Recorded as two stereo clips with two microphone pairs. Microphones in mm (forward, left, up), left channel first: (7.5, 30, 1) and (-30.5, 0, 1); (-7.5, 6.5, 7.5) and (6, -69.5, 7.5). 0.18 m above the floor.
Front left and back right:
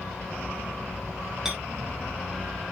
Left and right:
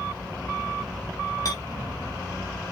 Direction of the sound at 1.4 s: 140° left.